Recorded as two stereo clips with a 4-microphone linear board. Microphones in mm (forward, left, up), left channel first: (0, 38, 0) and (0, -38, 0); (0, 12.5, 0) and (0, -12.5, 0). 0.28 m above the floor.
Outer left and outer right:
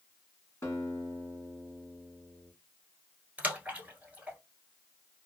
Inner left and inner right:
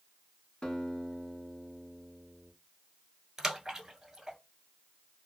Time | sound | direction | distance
0.6 | a guitar | 35° left (ahead or behind) | 1.5 m
3.4 | a splash | 20° right (ahead or behind) | 1.1 m